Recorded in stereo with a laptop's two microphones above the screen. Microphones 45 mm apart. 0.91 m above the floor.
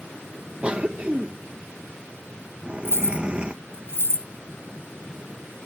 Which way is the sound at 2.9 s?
65° left (ahead or behind).